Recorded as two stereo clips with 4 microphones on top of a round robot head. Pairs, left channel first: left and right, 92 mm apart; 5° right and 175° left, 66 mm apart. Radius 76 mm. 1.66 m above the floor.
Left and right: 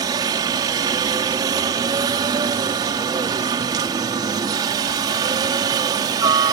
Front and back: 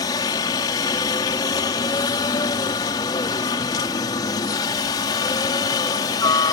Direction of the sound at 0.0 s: 40° right.